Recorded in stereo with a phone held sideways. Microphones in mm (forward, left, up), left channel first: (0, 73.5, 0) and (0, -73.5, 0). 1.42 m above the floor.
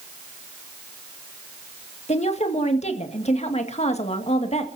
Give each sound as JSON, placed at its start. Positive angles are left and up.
{"t": 2.1, "sound": "a woman speaking", "side_deg": 50, "distance_m": 2.0}